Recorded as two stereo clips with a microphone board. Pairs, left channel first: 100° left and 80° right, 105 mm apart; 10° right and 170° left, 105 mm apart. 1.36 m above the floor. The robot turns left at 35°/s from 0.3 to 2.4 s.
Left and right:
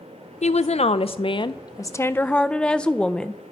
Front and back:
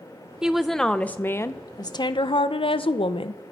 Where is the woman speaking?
90° left, 0.6 m; by 3.4 s 20° left, 0.6 m.